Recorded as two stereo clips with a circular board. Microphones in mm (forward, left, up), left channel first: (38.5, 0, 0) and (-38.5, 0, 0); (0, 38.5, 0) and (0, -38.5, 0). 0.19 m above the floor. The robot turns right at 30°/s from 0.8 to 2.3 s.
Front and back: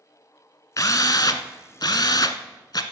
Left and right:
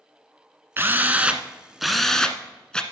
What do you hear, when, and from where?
0.8 s a drill: 35° right, 0.8 m; by 2.8 s 10° left, 0.8 m